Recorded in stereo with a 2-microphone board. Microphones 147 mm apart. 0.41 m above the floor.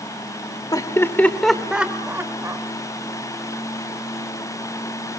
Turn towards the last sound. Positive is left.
turn(degrees=-20)  # may be behind; listen again after turning